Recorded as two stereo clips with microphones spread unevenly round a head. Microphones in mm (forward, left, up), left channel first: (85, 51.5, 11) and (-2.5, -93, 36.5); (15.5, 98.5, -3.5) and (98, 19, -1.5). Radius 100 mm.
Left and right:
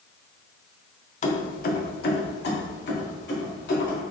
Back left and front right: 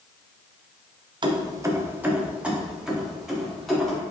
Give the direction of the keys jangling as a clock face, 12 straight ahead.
12 o'clock.